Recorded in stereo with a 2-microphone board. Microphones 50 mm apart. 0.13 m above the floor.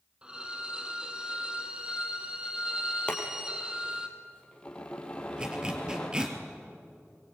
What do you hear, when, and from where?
0.2 s a violin: 20° right (ahead or behind), 2 m
3.1 s boiling: 20° left (ahead or behind), 3.5 m
5.4 s a zipper: 15° right (ahead or behind), 2.5 m